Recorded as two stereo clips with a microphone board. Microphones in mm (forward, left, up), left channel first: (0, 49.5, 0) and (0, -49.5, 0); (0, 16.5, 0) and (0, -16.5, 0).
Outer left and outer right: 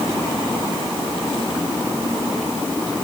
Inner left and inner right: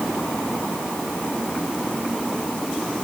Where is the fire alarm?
I don't hear a fire alarm.